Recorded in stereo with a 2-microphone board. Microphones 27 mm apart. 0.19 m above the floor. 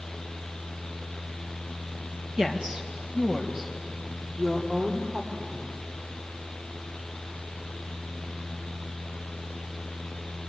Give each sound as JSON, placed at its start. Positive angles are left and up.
{"t": 2.4, "sound": "a woman speaking", "side_deg": -25, "distance_m": 2.5}